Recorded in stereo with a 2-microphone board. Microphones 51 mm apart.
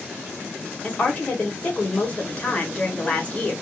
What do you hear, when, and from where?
0.8 s a woman speaking: 25° left (ahead or behind), 1.4 m